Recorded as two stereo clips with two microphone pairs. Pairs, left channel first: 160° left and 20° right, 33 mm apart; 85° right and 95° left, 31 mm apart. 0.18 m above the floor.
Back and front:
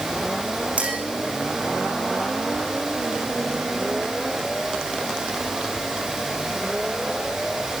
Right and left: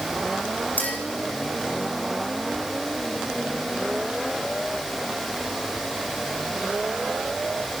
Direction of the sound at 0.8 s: 65° right.